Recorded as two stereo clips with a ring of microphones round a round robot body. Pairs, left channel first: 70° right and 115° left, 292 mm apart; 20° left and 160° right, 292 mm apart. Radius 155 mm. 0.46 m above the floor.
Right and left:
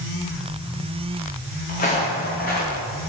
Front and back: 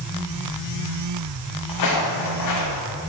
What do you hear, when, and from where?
1.7 s footsteps: 5° right, 1.8 m